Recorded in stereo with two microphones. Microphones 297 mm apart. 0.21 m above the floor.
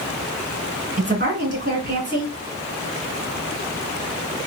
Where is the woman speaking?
35° right (ahead or behind), 2.5 m.